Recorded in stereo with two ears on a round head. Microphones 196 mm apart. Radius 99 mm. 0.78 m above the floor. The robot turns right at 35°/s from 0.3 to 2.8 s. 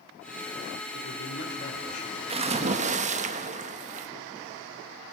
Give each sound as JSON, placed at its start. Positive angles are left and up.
{"t": 0.9, "sound": "a man speaking", "azimuth_deg": 110, "distance_m": 2.5}
{"t": 2.3, "sound": "a splash", "side_deg": -25, "distance_m": 1.1}